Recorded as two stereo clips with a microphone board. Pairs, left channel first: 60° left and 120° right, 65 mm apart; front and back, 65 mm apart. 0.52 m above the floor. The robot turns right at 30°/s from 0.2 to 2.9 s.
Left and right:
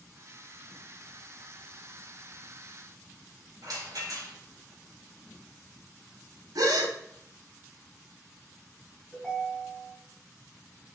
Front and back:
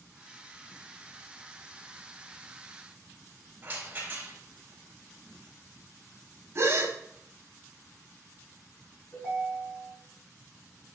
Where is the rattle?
120° right, 3 m.